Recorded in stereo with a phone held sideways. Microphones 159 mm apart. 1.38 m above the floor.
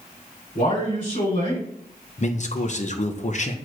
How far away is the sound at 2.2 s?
About 0.8 m.